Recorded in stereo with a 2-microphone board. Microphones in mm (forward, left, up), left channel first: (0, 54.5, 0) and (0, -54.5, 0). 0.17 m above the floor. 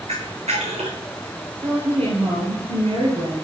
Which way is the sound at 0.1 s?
85° right.